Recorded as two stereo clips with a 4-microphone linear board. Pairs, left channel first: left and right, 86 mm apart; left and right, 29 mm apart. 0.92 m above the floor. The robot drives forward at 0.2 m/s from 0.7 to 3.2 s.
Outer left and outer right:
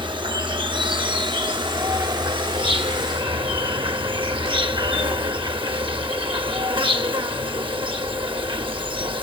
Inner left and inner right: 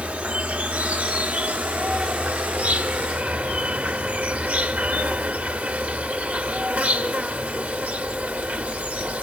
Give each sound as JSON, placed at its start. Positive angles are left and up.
{"t": 0.0, "sound": "an insect", "side_deg": -65, "distance_m": 1.0}